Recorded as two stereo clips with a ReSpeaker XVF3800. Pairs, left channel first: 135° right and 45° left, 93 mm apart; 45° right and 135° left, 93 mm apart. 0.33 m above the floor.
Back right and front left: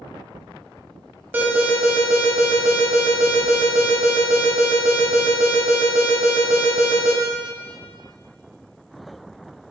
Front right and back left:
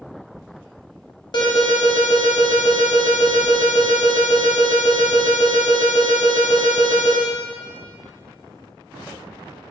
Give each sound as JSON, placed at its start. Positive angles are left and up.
{"t": 1.3, "sound": "an alarm", "azimuth_deg": -20, "distance_m": 1.0}